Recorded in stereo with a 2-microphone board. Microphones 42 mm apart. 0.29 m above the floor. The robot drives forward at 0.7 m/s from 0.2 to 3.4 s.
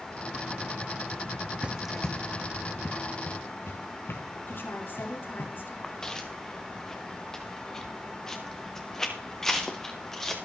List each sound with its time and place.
1.6 s running footsteps: 30° right (ahead or behind), 0.7 m; by 5.5 s 85° left, 4.5 m
4.5 s a woman speaking: 60° left (ahead or behind), 5 m
5.8 s footsteps: 15° left (ahead or behind), 2.0 m; by 10.4 s 10° left (ahead or behind), 4.5 m